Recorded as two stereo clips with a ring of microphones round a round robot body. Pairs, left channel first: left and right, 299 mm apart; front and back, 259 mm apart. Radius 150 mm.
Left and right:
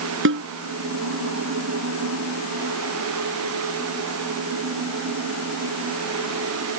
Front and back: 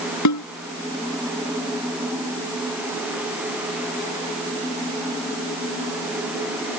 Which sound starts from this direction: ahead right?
A snare drum, at 0.2 s.